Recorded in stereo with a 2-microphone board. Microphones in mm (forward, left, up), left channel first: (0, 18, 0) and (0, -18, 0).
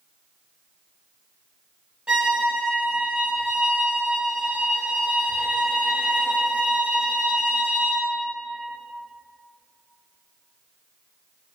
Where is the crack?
No crack in this recording.